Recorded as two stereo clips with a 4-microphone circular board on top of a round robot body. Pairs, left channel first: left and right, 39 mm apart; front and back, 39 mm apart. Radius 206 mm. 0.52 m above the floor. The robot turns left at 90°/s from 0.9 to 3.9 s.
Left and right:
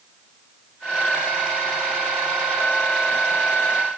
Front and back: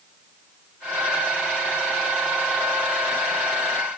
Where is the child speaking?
I don't hear a child speaking.